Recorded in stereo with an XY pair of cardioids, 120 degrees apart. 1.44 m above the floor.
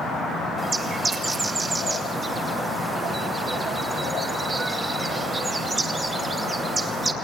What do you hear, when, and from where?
0.6 s a bird: 25° right, 2.5 m